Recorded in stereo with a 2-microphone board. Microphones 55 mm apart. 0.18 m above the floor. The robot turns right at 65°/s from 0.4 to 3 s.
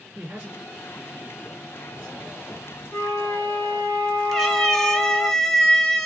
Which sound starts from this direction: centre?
A cat meowing, at 4.3 s.